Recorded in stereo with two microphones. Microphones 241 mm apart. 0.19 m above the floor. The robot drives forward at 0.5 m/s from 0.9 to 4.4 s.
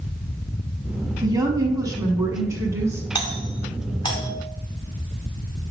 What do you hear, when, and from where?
1.2 s a woman speaking: 15° right (ahead or behind), 1.1 m; by 3.0 s 10° right (ahead or behind), 1.6 m
3.1 s a doorbell: 20° left (ahead or behind), 1.9 m